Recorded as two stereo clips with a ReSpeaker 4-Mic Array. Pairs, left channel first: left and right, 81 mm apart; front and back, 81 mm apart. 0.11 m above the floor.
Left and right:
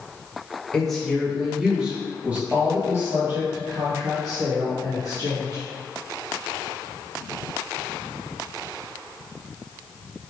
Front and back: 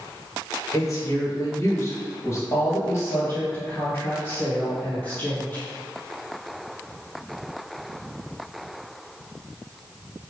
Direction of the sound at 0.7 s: 10° left.